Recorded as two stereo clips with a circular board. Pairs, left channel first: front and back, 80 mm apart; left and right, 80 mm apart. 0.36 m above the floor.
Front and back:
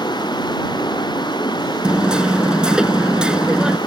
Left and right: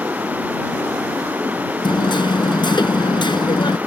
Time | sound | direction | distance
0.0 | running water | 20° right | ?
1.8 | hammering | 100° left | ?